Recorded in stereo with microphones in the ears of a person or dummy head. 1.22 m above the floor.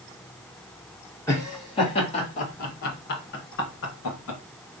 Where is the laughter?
15° left (ahead or behind), 1.5 m; by 4.4 s 70° left (ahead or behind), 1.8 m.